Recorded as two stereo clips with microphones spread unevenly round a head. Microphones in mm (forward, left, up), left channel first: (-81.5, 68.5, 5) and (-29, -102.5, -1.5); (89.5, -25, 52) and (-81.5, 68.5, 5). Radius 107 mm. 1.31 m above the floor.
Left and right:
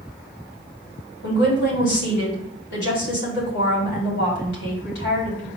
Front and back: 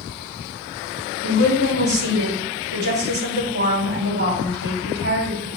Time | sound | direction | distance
1.2 | a woman speaking | 120° left | 3.5 m